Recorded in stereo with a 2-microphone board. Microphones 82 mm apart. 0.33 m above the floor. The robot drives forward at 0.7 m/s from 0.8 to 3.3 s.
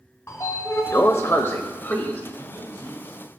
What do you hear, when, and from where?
0.3 s a sliding door: 30° left (ahead or behind), 0.9 m; by 2.2 s 25° left (ahead or behind), 1.3 m
2.4 s a man speaking: 45° left (ahead or behind), 6 m